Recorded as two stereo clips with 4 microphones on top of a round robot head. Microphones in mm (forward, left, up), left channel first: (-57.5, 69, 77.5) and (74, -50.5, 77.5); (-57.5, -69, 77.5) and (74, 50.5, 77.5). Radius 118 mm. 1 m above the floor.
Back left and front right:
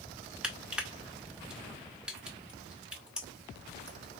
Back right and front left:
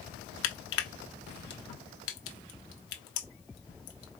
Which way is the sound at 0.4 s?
130° right.